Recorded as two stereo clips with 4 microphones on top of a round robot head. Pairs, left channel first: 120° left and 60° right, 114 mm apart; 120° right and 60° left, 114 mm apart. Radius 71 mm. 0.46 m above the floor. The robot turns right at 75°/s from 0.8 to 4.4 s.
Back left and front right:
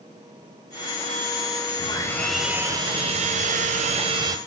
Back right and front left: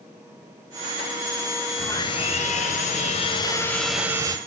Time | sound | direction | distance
1.8 | sawing | 170° left | 1.2 m